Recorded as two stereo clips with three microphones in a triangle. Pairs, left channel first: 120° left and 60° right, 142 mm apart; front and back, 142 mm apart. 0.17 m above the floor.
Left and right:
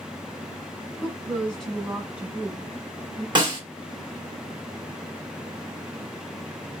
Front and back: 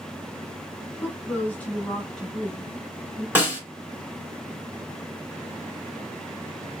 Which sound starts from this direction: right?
A snare drum, at 3.4 s.